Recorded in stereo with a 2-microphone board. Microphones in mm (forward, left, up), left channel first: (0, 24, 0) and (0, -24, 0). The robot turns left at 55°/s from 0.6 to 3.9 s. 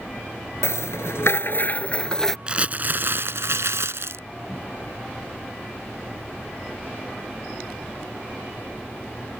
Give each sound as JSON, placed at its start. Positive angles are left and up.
{"t": 0.6, "sound": "a rattle", "azimuth_deg": 105}
{"t": 2.5, "sound": "crumpling", "azimuth_deg": -20}